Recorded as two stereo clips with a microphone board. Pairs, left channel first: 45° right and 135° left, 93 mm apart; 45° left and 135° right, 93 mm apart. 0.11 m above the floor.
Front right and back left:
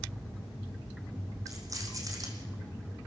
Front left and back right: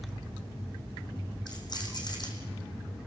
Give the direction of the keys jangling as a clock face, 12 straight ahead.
9 o'clock.